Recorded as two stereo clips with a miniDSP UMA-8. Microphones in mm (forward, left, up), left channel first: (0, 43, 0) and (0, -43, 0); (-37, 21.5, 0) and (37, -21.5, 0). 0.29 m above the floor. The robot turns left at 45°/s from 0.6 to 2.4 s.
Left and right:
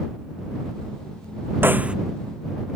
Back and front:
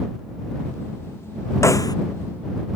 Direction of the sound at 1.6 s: 155° right.